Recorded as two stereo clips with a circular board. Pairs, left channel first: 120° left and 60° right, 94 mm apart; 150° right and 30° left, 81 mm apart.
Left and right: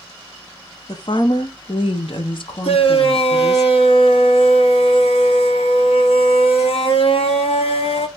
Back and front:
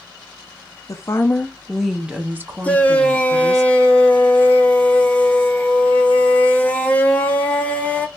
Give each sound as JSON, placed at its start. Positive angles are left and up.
{"t": 0.9, "sound": "a woman speaking", "azimuth_deg": 165, "distance_m": 0.7}
{"t": 2.6, "sound": "a shout", "azimuth_deg": 135, "distance_m": 1.2}